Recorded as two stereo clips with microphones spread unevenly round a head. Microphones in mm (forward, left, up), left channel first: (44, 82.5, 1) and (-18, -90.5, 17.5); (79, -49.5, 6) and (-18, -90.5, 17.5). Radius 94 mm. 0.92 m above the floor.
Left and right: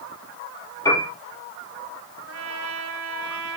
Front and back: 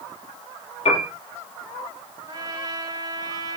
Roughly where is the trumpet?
Right.